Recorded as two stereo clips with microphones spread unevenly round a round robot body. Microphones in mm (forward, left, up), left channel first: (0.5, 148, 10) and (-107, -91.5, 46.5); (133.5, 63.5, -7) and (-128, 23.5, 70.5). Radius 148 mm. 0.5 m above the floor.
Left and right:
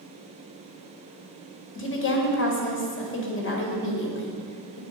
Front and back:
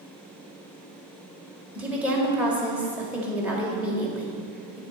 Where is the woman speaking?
95° left, 2 m.